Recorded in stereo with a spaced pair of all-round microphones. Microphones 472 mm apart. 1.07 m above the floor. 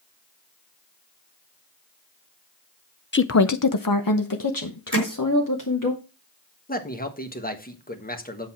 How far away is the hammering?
About 1.9 m.